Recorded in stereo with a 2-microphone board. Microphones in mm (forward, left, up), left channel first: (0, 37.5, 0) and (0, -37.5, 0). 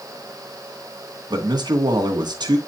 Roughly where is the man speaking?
Right.